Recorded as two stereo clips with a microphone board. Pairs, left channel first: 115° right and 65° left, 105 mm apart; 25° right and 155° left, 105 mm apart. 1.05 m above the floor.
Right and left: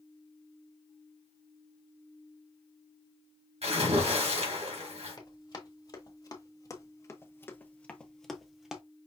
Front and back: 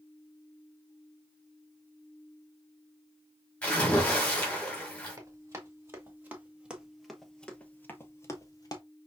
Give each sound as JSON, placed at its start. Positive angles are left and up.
{"t": 3.6, "sound": "a splash", "azimuth_deg": 55, "distance_m": 2.5}
{"t": 5.2, "sound": "running footsteps", "azimuth_deg": -150, "distance_m": 1.8}